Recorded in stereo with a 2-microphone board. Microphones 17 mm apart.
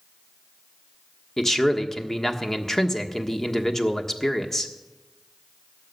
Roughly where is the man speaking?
Left.